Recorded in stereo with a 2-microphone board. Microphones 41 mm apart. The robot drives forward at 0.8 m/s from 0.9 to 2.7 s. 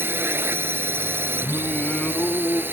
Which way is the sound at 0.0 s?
65° right (ahead or behind).